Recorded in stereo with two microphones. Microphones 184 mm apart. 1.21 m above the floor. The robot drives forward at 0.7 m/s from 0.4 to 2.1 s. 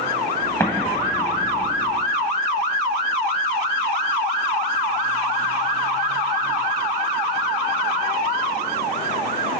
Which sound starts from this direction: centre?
An explosion, at 0.6 s.